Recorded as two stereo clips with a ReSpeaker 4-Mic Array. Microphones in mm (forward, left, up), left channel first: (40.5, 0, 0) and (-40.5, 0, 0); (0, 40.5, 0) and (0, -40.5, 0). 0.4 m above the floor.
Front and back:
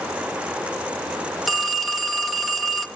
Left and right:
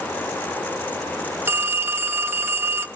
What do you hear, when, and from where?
1.5 s a phone ringing: 95° right, 0.9 m